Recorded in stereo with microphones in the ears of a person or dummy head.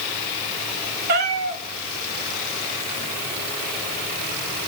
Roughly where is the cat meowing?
Right.